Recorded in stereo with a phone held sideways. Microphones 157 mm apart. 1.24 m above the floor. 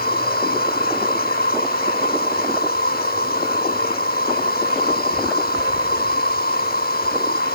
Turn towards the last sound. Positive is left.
turn(degrees=85)